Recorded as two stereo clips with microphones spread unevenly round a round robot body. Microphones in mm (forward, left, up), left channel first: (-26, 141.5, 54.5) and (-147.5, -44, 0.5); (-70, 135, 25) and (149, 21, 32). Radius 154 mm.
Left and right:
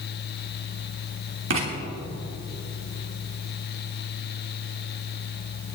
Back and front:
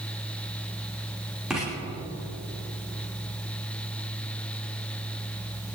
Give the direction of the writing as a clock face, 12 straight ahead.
4 o'clock.